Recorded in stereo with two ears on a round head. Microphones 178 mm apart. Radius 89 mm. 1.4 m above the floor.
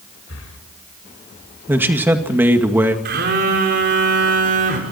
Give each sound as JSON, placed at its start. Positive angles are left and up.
{"t": 0.3, "sound": "breathing", "side_deg": 75, "distance_m": 4.0}
{"t": 1.7, "sound": "a man speaking", "side_deg": -10, "distance_m": 1.9}
{"t": 3.0, "sound": "a phone buzzing", "side_deg": -55, "distance_m": 4.5}